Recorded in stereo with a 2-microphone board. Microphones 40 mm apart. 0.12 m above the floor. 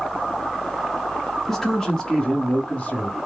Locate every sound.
1.5 s a man speaking: 10° left (ahead or behind), 1.3 m; by 3.2 s 40° left (ahead or behind), 1.6 m